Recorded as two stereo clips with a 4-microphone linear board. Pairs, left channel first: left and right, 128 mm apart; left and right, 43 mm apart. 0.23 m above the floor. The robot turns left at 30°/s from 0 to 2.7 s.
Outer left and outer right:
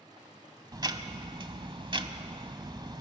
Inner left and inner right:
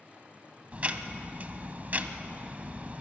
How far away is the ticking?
About 1.1 m.